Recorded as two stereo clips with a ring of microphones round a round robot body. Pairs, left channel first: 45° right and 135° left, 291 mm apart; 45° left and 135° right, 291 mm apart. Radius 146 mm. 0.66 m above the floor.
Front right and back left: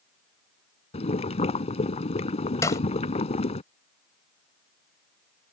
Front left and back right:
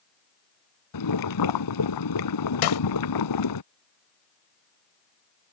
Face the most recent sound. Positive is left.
turn(degrees=35)